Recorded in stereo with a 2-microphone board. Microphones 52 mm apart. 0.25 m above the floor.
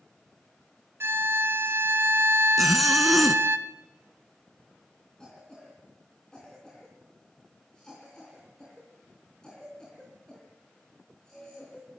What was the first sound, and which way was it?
A violin, 50° right (ahead or behind).